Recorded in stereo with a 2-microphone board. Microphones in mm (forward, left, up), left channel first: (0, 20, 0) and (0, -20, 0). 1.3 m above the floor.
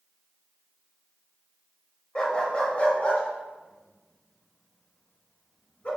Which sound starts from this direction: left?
A dog barking, at 2.1 s.